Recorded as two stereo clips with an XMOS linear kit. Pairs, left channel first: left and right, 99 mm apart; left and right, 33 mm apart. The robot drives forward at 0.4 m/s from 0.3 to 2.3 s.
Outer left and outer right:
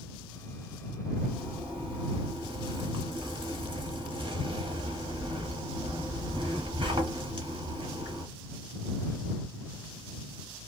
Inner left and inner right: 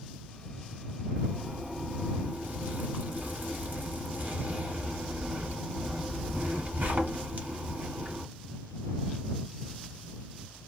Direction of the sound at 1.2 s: 65° right (ahead or behind).